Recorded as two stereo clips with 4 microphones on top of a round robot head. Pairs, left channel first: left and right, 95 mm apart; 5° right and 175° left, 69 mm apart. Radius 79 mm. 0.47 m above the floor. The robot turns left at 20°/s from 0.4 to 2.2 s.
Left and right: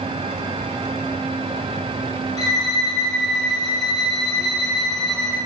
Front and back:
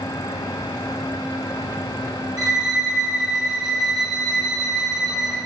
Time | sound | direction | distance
2.4 | a violin | 140° left | 4 m